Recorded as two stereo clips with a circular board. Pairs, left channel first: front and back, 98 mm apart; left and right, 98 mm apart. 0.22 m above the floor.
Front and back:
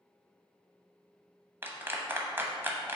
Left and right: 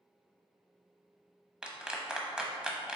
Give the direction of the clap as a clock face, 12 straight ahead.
5 o'clock.